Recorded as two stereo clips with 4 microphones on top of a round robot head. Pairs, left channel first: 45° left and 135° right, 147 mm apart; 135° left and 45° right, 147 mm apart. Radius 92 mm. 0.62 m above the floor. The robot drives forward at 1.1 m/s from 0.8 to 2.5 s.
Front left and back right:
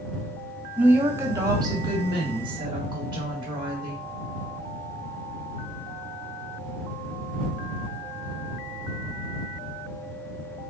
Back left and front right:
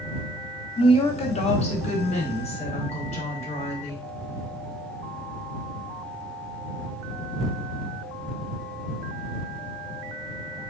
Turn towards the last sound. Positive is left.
turn(degrees=175)